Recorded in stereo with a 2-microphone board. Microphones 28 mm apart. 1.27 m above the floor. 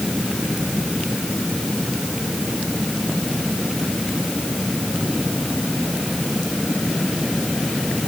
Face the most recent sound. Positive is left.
No sound to turn to.